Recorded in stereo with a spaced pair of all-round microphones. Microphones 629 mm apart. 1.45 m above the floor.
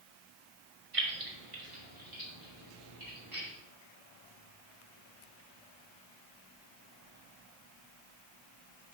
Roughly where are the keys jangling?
Right.